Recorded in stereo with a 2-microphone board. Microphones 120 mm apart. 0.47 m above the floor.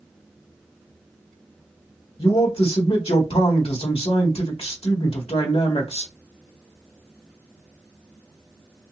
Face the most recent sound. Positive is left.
turn(degrees=55)  # may be behind; listen again after turning